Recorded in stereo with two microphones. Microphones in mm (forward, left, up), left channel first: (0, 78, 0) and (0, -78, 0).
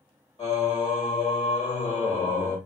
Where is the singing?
35° left (ahead or behind), 1.5 m.